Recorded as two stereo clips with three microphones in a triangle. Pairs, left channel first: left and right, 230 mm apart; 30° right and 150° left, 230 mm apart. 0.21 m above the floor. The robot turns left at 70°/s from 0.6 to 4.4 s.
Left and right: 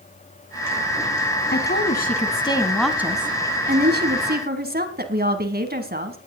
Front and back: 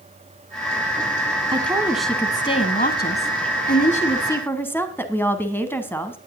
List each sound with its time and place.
1.5 s a woman speaking: 95° left, 1.7 m; by 6.2 s 110° right, 1.7 m